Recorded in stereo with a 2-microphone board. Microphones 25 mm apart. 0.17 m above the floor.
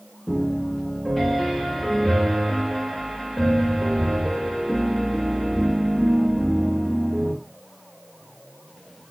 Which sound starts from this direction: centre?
A piano, at 0.3 s.